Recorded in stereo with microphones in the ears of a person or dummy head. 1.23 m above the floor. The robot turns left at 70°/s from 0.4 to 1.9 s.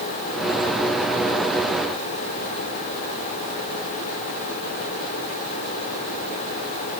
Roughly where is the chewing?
I don't hear chewing.